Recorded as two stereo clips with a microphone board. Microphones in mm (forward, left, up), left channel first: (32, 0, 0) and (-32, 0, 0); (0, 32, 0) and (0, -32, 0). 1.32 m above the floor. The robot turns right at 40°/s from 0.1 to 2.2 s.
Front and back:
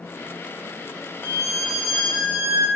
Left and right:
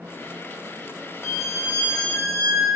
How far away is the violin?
About 0.9 m.